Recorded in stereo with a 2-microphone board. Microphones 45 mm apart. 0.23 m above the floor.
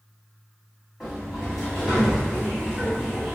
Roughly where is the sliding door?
Centre.